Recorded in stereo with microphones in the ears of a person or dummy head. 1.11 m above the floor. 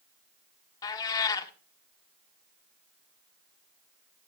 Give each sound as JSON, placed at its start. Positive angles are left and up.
{"t": 0.8, "sound": "a cat meowing", "side_deg": 25, "distance_m": 1.1}